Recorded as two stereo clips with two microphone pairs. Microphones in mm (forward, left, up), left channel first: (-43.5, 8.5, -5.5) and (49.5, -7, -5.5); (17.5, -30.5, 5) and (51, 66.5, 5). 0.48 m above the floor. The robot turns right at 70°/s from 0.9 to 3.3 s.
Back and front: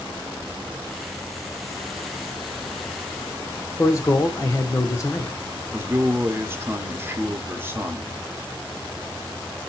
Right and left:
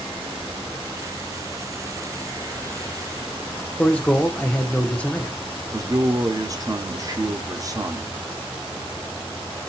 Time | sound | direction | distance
3.8 | a man speaking | straight behind | 0.9 m
5.7 | a man speaking | 45° left | 0.8 m